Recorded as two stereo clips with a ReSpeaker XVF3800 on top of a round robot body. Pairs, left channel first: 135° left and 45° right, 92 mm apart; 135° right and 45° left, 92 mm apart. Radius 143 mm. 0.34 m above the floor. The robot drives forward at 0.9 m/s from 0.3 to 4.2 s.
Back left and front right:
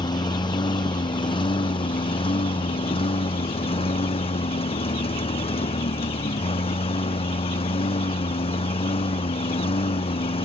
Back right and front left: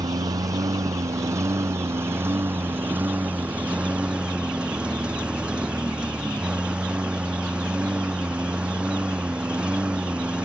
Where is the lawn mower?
95° left; by 10.5 s 125° left.